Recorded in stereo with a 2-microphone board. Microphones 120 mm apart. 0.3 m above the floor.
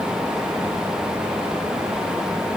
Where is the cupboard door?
No cupboard door in this recording.